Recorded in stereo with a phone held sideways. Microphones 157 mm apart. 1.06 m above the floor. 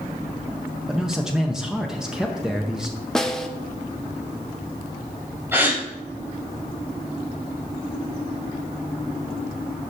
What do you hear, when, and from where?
0.9 s a man speaking: 5° right (ahead or behind), 0.7 m
3.1 s a snare drum: 5° left (ahead or behind), 0.7 m
5.5 s a gasp: 15° right (ahead or behind), 3 m